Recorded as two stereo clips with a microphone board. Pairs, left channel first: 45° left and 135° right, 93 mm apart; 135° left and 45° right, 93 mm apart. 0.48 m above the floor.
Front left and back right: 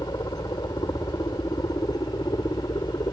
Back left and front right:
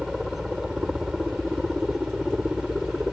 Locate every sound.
0.0 s a helicopter: 40° left